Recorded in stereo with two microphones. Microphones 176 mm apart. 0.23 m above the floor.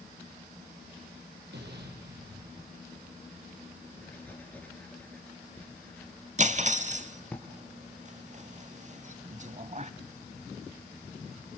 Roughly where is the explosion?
Right.